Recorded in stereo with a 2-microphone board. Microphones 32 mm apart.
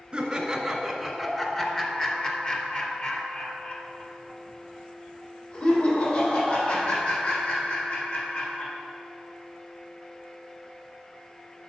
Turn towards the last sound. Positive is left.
turn(degrees=55)  # may be behind; listen again after turning